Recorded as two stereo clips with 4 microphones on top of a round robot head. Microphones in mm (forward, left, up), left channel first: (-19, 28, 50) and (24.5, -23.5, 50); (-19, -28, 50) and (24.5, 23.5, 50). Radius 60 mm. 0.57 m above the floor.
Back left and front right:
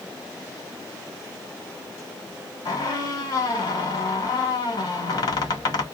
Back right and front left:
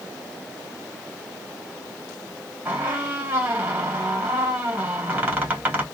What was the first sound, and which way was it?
A squeak, 110° left.